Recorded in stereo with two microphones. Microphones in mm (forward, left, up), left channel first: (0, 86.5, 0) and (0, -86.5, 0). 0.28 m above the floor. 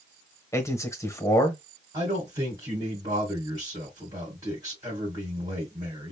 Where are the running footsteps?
No running footsteps in this recording.